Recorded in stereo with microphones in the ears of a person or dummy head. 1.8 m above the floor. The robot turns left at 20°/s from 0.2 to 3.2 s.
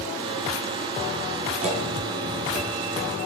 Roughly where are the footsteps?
Right.